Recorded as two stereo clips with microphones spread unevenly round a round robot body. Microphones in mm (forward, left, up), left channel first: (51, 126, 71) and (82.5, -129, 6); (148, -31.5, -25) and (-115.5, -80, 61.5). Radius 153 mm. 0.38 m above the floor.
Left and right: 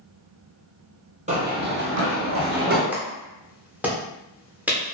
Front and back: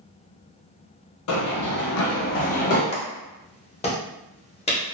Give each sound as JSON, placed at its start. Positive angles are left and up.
{"t": 1.3, "sound": "running footsteps", "azimuth_deg": -15, "distance_m": 0.6}
{"t": 2.9, "sound": "a clap", "azimuth_deg": -20, "distance_m": 0.8}